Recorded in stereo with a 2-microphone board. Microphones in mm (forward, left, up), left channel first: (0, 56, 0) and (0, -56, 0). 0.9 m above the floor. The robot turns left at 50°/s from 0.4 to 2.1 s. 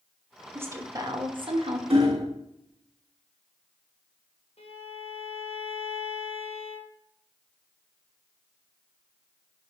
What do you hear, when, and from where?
0.6 s a woman speaking: 20° right, 1.2 m; by 1.8 s 85° right, 1.2 m
1.9 s hammering: 60° right (ahead or behind), 1.3 m; by 2.3 s 55° right (ahead or behind), 1.3 m
4.6 s a violin: 65° left (ahead or behind), 1.3 m